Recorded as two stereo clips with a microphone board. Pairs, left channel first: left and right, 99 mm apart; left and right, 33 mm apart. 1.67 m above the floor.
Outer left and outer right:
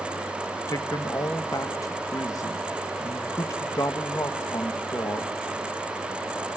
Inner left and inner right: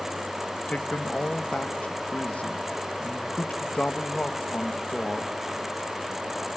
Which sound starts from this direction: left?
A man speaking, at 0.7 s.